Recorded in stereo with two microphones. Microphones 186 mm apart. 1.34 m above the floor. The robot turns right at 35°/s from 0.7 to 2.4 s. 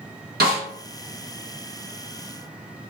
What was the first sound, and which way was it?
A snare drum, 55° right (ahead or behind).